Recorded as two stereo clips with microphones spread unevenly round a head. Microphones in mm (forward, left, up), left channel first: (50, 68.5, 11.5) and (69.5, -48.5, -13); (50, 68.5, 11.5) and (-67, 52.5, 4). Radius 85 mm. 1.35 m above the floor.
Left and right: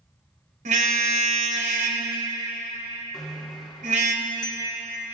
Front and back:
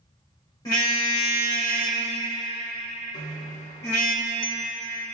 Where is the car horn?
65° right, 2.5 m.